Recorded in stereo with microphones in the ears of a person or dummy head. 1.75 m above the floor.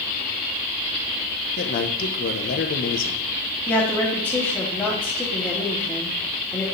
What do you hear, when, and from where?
1.6 s a man speaking: 50° left (ahead or behind), 1.4 m
3.7 s a woman speaking: 10° left (ahead or behind), 3 m